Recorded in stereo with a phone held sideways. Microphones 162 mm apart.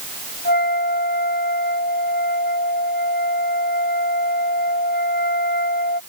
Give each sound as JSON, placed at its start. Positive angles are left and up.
{"t": 0.5, "sound": "a flute", "side_deg": 85}